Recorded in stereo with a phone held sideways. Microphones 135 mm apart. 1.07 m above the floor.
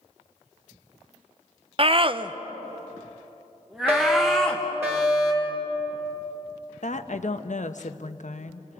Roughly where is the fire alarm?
Centre.